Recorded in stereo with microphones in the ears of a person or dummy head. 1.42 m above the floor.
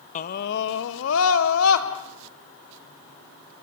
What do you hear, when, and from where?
0.1 s a scream: 40° left (ahead or behind), 1.1 m; by 1.9 s 85° left, 3 m